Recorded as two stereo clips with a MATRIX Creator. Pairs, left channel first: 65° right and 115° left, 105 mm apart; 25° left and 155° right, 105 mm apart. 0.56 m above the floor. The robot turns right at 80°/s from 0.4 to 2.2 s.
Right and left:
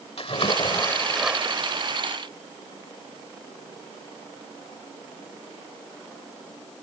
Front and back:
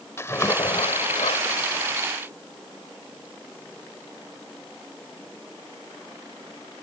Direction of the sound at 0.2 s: 40° right.